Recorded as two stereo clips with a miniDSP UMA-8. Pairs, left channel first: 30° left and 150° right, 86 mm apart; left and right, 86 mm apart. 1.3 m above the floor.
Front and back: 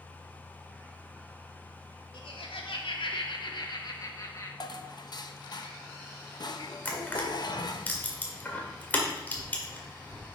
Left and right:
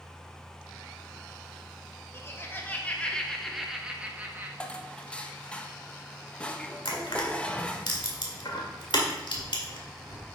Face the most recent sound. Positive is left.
turn(degrees=100)